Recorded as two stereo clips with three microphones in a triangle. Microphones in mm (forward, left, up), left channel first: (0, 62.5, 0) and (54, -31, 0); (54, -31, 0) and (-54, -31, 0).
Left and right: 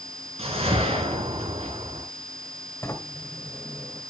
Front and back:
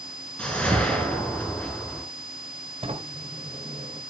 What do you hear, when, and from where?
0.4 s a whoosh: 80° right, 3 m
2.8 s a sliding door: 175° right, 1.9 m